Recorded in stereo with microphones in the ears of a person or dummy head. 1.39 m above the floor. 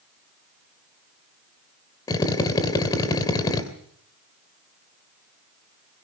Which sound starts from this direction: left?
A drill, at 2.1 s.